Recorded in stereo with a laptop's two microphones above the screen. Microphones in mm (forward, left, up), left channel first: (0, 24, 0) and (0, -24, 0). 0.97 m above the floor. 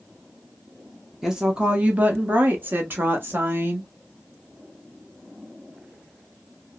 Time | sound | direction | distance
1.2 | a woman speaking | 10° right (ahead or behind) | 0.8 m